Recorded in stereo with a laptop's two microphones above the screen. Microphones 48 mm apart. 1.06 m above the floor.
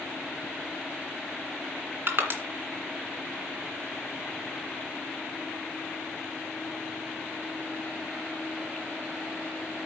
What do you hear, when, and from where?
2.1 s crushing: 50° right (ahead or behind), 2.5 m